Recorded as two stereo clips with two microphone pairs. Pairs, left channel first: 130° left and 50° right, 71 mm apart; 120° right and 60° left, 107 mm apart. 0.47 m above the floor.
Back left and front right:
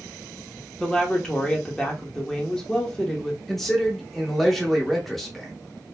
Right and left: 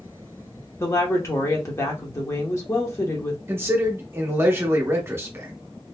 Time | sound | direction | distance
0.8 | a woman speaking | 150° right | 0.8 m
3.5 | a man speaking | 45° left | 0.8 m